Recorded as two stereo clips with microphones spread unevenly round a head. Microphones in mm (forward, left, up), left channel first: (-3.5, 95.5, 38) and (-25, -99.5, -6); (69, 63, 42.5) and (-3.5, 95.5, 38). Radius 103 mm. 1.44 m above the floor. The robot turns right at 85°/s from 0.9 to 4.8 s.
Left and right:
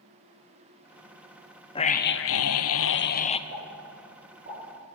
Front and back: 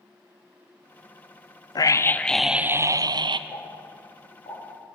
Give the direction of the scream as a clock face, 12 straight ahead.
12 o'clock.